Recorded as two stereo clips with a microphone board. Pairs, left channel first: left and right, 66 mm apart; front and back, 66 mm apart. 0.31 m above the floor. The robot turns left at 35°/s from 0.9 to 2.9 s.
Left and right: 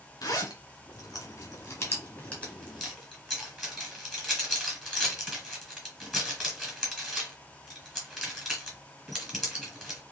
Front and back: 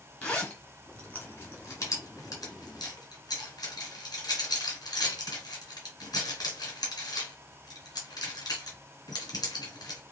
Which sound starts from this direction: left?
A zipper, at 0.2 s.